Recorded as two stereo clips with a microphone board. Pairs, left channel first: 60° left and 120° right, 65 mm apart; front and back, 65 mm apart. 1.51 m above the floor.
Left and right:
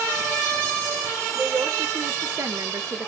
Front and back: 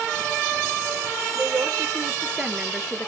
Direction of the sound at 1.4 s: 140° right.